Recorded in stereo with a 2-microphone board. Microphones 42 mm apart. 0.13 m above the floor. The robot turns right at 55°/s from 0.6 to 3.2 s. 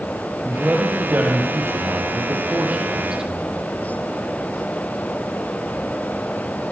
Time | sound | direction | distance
0.5 | a man speaking | 155° right | 4.5 m